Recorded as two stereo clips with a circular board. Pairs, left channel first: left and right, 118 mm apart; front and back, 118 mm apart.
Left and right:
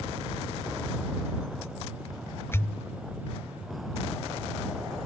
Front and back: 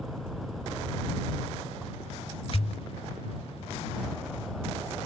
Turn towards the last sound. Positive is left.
turn(degrees=25)